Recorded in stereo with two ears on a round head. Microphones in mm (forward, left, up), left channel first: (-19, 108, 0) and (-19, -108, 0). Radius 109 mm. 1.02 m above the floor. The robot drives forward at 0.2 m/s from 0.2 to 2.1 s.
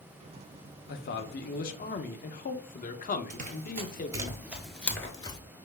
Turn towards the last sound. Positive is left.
turn(degrees=20)  # may be behind; listen again after turning